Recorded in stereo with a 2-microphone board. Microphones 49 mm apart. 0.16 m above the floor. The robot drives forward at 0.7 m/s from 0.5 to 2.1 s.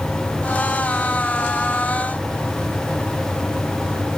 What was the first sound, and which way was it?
Only background noise.